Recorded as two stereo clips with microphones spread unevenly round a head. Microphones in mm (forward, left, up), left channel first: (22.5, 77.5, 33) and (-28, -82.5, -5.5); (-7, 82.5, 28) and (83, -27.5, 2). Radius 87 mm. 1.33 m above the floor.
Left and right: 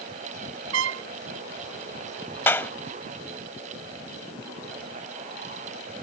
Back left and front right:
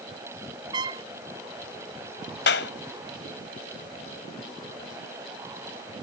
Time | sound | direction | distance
0.7 | a trumpet | 120° right | ?
2.5 | a clap | 150° left | ?